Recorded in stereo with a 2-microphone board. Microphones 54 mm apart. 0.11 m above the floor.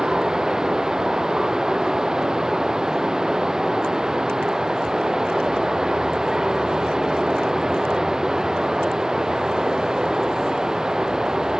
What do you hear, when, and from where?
0.0 s running water: 10° right (ahead or behind)